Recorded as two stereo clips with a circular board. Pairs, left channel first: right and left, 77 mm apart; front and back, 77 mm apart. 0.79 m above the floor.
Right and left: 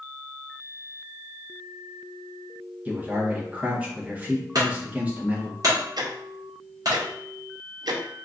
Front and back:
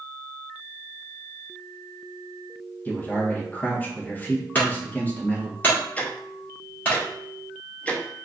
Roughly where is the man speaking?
Ahead left.